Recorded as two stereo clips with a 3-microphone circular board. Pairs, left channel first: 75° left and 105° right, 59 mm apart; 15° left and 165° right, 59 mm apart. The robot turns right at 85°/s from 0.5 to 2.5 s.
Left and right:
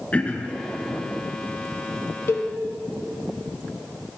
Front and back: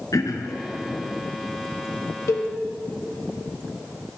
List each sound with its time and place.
0.1 s throat clearing: 5° left, 0.8 m; by 0.6 s 10° left, 0.8 m
2.3 s a cowbell: 35° left, 0.8 m; by 2.5 s 50° left, 0.8 m